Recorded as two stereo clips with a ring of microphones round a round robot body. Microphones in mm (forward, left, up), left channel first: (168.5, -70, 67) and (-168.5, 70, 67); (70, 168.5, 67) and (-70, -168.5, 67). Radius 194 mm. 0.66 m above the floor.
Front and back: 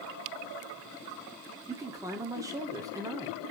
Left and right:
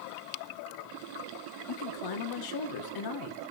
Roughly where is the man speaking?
Left.